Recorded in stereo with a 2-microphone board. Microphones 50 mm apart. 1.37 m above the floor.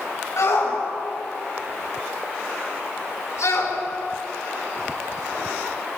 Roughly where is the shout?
Left.